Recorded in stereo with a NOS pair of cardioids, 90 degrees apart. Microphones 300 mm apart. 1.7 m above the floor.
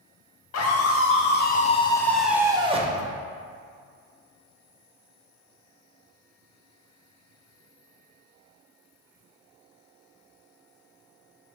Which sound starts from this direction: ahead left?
A scream, at 0.5 s.